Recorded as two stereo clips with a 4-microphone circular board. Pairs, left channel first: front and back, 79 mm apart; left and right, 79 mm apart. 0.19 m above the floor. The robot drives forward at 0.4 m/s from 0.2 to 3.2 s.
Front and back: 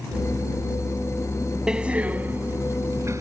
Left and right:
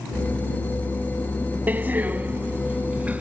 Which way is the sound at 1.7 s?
115° right.